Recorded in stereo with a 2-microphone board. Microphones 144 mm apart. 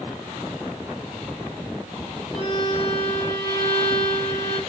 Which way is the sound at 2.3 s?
40° left (ahead or behind).